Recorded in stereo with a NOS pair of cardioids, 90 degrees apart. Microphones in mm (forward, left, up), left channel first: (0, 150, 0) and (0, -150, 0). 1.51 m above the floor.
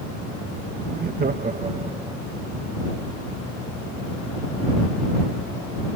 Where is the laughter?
35° right; by 2.2 s 10° right.